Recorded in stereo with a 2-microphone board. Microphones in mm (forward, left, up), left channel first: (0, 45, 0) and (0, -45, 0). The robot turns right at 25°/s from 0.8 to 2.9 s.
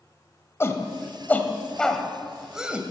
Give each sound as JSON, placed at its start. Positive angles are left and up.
{"t": 0.6, "sound": "a shout", "side_deg": 30, "distance_m": 1.7}